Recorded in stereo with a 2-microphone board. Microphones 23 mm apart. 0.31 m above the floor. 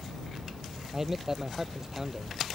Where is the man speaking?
15° right (ahead or behind).